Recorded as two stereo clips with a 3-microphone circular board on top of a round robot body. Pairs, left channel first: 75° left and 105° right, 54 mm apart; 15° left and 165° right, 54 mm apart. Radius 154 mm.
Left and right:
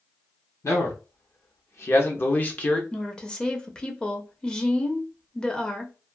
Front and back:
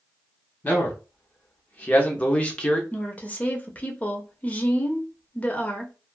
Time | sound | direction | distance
0.6 | a man speaking | 70° left | 1.7 m
2.9 | a woman speaking | 20° left | 0.9 m